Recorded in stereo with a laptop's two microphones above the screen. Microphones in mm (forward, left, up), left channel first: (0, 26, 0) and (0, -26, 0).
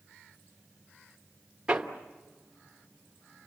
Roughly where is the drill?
No drill in this recording.